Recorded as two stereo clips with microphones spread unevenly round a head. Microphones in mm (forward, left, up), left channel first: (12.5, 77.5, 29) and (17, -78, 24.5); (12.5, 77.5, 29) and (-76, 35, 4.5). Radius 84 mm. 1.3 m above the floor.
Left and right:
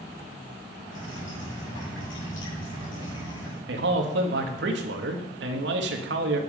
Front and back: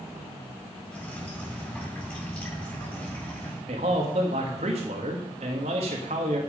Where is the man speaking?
110° right, 1.6 m.